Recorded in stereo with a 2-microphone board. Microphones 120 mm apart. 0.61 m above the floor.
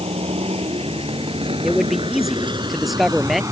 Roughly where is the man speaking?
Centre.